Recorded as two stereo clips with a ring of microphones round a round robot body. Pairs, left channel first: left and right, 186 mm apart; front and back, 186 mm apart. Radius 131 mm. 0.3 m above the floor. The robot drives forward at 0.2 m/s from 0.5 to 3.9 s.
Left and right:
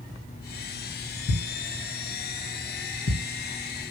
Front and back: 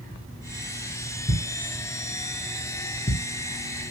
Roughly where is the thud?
Ahead left.